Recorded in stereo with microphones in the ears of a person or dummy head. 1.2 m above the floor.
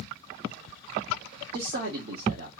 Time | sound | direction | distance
1.5 | a man speaking | 55° right (ahead or behind) | 0.7 m